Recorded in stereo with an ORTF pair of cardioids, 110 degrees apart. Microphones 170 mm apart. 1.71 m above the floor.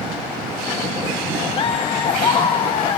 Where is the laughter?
35° left, 1.0 m.